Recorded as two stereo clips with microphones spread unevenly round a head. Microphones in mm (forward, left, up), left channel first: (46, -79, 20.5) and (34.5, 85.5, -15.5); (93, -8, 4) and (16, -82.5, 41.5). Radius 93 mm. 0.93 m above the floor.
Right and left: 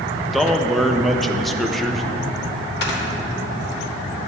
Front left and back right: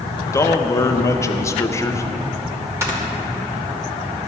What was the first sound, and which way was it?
A man speaking, 15° left.